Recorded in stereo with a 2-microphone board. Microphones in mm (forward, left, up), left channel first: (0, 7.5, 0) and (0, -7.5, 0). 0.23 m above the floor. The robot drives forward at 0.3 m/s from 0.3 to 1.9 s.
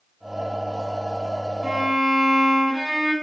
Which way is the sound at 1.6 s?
35° right (ahead or behind).